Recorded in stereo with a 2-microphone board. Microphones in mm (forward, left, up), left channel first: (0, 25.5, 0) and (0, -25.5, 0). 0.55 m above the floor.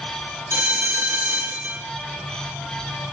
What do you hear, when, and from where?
0.5 s a bell: 65° right (ahead or behind), 6 m